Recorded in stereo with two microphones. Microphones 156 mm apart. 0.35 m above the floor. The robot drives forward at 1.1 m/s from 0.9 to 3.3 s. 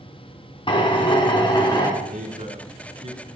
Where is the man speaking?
55° right (ahead or behind), 3 m; by 3.2 s 40° right (ahead or behind), 4 m.